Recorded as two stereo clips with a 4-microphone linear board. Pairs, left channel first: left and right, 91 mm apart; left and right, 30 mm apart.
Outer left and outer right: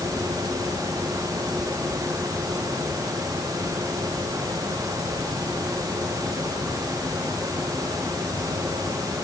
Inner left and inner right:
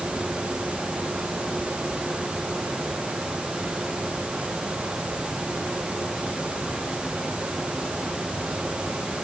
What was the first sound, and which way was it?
Only background noise.